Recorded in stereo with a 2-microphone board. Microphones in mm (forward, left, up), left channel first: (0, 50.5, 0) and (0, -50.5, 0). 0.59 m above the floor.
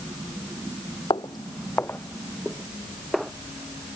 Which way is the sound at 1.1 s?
55° left (ahead or behind).